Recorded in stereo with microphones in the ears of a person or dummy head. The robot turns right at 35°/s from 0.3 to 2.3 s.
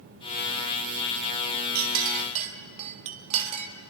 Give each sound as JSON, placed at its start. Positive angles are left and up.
{"t": 1.8, "sound": "a clink", "side_deg": -55, "distance_m": 1.8}